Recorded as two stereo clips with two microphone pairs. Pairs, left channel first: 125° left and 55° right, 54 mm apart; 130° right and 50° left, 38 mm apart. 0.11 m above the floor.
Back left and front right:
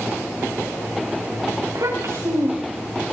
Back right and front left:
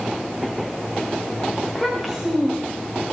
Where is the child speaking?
35° right, 8 m.